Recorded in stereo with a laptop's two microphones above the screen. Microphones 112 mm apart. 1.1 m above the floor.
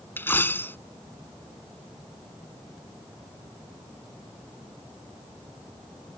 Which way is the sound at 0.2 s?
20° left (ahead or behind).